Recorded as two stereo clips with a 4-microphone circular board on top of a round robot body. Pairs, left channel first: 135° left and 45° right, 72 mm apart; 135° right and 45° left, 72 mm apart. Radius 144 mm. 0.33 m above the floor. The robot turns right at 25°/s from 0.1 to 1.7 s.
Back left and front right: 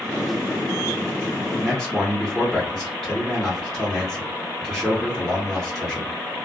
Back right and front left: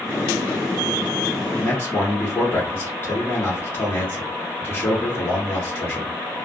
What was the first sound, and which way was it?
A man speaking, 140° right.